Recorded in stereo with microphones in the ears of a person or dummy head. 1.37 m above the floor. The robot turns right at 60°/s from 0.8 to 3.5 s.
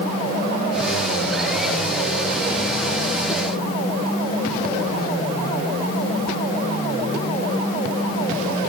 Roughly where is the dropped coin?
No dropped coin in this recording.